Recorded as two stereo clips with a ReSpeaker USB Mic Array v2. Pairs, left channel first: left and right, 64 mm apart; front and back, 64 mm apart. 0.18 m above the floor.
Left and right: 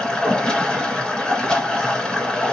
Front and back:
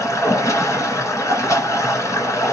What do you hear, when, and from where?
0.0 s running water: 15° left, 1.8 m